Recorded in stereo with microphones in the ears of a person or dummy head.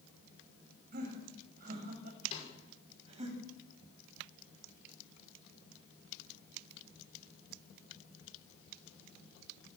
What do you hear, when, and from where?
0.9 s laughter: 50° right (ahead or behind), 7.5 m; by 3.3 s 35° right (ahead or behind), 8.5 m
2.3 s a snare drum: 35° left (ahead or behind), 6 m